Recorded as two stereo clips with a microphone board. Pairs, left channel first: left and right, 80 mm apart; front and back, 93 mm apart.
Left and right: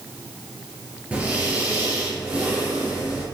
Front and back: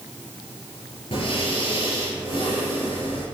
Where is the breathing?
15° right, 4 m.